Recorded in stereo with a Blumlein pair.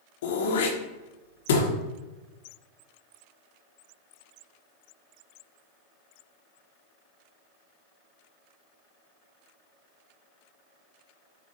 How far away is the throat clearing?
About 0.8 m.